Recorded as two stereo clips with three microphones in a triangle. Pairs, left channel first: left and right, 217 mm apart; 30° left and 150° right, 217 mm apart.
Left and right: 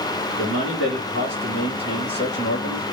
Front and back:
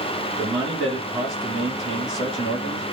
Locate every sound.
0.4 s a man speaking: 135° left, 2.0 m